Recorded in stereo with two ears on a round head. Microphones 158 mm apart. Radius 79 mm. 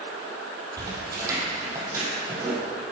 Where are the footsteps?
20° right (ahead or behind), 2 m; by 2.6 s 15° right (ahead or behind), 3 m.